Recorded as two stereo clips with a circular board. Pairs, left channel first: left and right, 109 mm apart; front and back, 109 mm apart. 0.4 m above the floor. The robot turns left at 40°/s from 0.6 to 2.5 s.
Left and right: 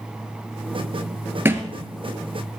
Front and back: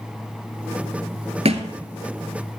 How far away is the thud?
About 1.6 m.